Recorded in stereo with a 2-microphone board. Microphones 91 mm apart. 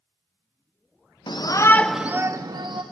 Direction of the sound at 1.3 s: 55° left (ahead or behind).